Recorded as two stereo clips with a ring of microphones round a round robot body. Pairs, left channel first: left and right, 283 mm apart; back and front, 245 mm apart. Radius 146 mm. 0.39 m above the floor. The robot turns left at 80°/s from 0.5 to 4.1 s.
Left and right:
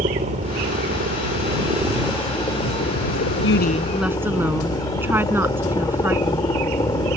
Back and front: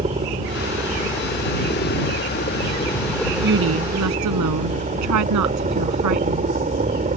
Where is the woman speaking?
45° left; by 6.5 s 5° right.